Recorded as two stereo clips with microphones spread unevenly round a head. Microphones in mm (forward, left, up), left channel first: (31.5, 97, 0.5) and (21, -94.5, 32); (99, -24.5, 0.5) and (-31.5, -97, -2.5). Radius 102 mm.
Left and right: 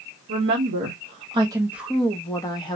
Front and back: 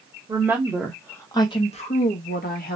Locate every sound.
0.3 s a woman speaking: 80° right, 0.9 m; by 2.8 s 20° left, 1.0 m